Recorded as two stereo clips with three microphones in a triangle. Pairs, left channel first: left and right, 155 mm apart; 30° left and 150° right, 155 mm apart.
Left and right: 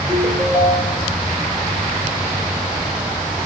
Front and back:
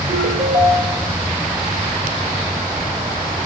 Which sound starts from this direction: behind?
A ringtone, at 0.1 s.